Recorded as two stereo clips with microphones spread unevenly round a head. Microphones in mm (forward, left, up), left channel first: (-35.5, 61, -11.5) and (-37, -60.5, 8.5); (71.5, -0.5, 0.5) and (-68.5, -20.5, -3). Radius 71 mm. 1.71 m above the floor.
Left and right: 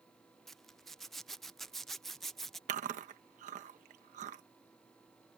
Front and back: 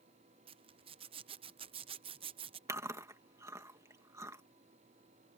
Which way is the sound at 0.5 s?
170° right.